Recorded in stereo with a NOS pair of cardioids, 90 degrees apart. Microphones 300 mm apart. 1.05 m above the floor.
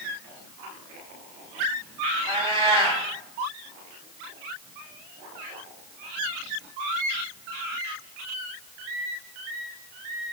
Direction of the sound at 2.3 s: 20° right.